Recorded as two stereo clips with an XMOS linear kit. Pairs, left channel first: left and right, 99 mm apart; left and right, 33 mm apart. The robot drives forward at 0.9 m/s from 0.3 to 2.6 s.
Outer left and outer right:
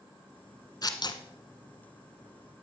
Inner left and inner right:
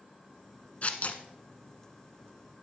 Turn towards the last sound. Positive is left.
turn(degrees=35)  # may be behind; listen again after turning